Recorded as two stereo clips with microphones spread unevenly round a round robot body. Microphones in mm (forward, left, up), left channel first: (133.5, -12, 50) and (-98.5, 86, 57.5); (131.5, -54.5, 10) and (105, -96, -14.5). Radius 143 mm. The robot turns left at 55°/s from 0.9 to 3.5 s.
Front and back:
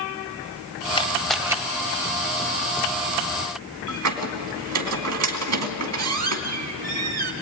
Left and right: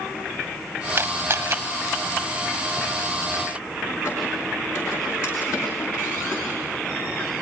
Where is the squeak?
140° left, 2.5 m.